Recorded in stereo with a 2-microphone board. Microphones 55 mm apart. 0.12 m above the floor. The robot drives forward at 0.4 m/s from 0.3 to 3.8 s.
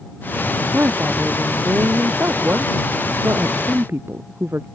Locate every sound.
0.7 s a woman speaking: 40° right (ahead or behind); by 4.7 s 45° right (ahead or behind)